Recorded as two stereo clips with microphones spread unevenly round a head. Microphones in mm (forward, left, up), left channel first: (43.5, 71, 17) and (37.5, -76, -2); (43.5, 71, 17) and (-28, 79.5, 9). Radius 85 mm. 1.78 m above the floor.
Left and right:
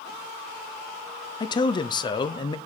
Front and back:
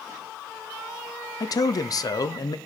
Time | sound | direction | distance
1.4 | a man speaking | 30° left | 0.9 m